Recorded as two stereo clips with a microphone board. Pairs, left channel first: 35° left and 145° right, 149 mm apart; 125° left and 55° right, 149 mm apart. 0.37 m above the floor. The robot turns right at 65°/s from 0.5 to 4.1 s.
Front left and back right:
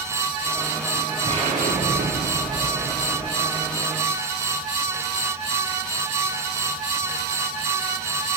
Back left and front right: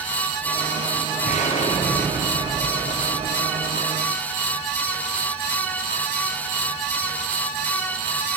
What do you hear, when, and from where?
1.2 s an explosion: 150° left, 9.5 m; by 3.8 s 40° right, 9.5 m